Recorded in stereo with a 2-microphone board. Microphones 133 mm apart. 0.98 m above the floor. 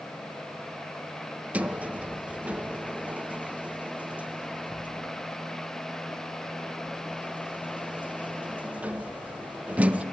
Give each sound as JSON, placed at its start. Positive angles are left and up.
{"t": 1.5, "sound": "a sliding door", "side_deg": -10, "distance_m": 0.7}